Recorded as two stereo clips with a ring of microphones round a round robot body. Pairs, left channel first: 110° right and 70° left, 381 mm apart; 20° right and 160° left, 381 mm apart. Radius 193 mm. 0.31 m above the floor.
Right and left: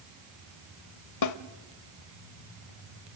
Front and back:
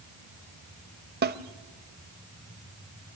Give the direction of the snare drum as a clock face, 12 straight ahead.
5 o'clock.